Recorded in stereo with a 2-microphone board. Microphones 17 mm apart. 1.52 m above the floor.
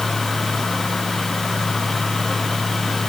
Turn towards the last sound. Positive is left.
No sound to turn to.